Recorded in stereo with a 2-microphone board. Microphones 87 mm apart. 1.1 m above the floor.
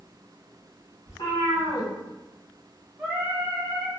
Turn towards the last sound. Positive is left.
turn(degrees=-20)  # may be behind; listen again after turning